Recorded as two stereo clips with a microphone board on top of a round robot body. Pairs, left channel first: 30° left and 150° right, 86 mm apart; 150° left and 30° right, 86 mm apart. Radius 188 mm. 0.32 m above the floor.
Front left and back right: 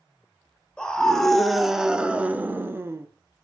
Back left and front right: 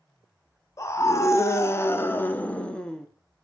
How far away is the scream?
About 1.4 m.